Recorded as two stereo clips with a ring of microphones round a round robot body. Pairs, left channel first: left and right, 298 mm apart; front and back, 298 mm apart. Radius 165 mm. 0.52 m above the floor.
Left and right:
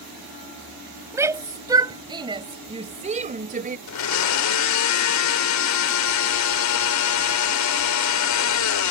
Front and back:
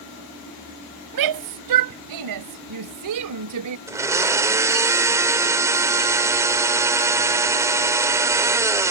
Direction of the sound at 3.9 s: 100° left.